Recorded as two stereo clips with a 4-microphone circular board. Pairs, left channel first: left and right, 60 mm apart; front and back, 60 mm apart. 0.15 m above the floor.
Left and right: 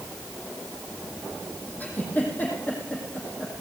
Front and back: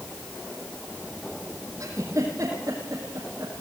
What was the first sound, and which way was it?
A giggle, 150° left.